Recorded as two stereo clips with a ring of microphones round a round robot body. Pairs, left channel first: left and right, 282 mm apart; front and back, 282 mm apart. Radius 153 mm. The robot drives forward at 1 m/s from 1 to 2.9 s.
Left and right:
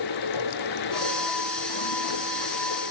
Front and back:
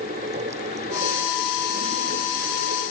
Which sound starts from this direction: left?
Running water, at 0.0 s.